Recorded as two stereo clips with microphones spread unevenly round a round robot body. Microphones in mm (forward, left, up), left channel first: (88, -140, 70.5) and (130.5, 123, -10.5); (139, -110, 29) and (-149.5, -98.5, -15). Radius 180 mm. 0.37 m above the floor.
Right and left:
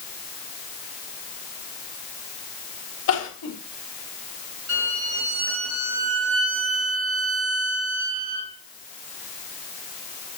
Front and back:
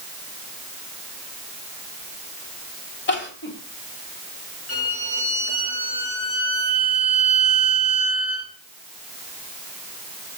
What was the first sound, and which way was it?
Crying, 55° right.